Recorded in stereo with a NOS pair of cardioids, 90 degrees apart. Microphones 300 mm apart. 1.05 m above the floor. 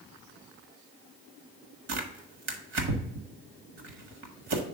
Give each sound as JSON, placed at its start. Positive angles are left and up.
{"t": 1.9, "sound": "tearing paper", "azimuth_deg": -55, "distance_m": 1.6}